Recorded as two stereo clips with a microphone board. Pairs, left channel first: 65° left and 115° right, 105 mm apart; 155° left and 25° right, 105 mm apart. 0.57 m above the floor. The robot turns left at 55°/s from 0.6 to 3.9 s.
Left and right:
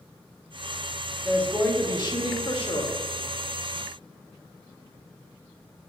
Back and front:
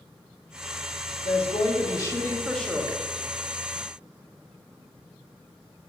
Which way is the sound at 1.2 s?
150° left.